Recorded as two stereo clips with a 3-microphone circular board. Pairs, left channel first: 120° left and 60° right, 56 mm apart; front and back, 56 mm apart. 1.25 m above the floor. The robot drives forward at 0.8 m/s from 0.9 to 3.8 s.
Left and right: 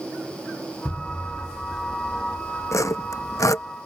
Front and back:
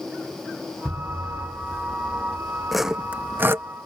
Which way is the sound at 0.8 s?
150° left.